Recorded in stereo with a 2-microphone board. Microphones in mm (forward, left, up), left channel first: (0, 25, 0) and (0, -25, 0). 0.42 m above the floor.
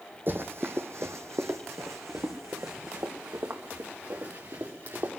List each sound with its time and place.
0.3 s running footsteps: 50° right (ahead or behind), 1.2 m; by 5.1 s 65° right (ahead or behind), 3.5 m